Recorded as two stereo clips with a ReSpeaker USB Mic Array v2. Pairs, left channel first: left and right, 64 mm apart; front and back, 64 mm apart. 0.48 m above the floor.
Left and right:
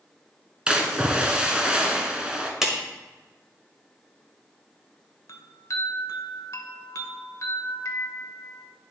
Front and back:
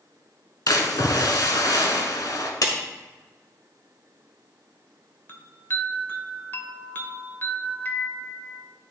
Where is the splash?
15° right, 1.1 m.